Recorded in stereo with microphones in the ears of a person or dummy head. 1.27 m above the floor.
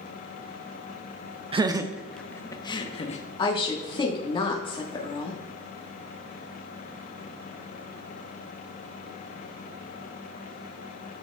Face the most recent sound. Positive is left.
turn(degrees=30)  # may be behind; listen again after turning